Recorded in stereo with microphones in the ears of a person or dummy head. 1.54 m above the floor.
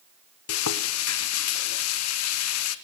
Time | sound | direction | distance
0.5 | frying | 75° left (ahead or behind) | 1.2 m